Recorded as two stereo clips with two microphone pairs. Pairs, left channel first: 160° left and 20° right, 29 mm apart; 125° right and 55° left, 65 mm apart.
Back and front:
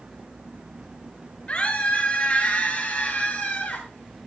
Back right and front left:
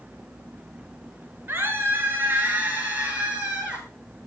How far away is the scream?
About 8.5 m.